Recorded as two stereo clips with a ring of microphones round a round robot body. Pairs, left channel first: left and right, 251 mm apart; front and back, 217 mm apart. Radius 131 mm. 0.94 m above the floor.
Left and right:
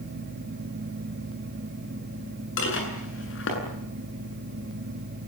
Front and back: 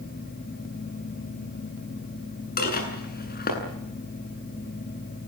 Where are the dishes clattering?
45° left, 8.5 m.